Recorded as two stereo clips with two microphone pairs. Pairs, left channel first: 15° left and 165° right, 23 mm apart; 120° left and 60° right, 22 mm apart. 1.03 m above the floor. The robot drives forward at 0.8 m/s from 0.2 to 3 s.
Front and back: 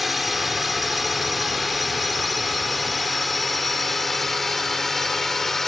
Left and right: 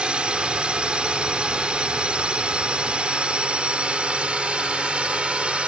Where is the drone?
80° right; by 5.7 s 60° right.